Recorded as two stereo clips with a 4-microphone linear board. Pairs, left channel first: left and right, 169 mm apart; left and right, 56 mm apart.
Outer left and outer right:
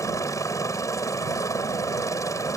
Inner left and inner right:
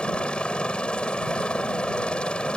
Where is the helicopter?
20° left (ahead or behind).